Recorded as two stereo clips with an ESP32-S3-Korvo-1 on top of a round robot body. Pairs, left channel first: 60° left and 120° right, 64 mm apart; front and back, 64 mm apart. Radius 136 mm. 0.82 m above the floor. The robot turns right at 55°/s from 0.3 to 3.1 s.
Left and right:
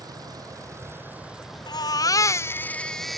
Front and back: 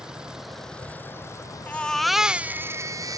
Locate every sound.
0.0 s a vehicle: 100° right; by 3.2 s 55° left
1.7 s a baby crying: 70° left; by 3.2 s 145° left